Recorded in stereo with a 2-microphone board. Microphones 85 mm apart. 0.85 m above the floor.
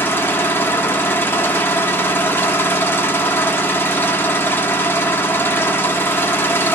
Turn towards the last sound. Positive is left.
turn(degrees=30)  # may be behind; listen again after turning